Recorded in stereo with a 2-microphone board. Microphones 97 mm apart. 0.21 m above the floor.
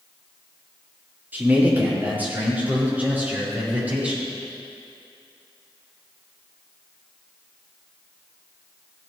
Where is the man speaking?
20° right (ahead or behind), 5 m; by 4.3 s 15° right (ahead or behind), 9.5 m.